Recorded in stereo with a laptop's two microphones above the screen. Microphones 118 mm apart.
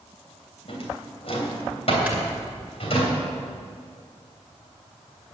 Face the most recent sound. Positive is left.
turn(degrees=-10)  # may be behind; listen again after turning